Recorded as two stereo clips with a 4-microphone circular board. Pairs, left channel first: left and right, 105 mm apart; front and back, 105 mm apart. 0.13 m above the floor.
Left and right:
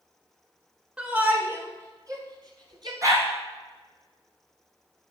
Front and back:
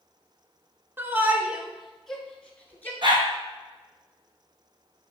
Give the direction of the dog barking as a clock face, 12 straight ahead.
5 o'clock.